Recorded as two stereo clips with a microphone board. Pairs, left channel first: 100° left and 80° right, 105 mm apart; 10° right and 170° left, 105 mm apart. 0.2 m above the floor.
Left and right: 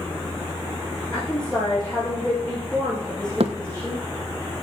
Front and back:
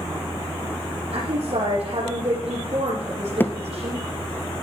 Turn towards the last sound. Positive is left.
turn(degrees=-80)